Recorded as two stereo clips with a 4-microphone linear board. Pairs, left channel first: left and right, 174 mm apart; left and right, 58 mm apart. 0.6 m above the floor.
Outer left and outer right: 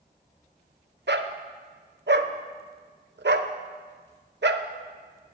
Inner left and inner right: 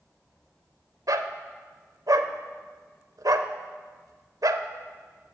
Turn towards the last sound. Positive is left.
turn(degrees=-85)